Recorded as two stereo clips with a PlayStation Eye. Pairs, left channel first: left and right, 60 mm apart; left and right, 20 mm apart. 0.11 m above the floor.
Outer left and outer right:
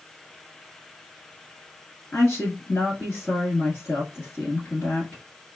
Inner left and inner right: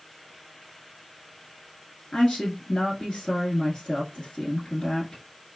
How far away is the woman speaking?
About 1.2 m.